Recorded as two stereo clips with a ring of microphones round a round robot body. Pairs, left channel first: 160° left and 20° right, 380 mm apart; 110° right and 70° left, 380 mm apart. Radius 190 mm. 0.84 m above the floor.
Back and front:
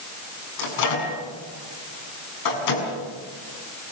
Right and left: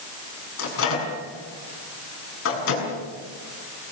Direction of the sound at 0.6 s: 170° right.